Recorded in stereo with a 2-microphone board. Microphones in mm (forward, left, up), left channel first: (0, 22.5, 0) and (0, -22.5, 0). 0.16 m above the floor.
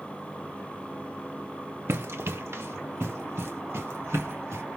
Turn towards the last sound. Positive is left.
turn(degrees=-80)